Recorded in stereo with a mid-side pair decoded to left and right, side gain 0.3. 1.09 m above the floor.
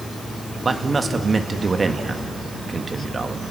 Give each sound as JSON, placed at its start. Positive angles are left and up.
{"t": 0.7, "sound": "a man speaking", "azimuth_deg": -45, "distance_m": 1.6}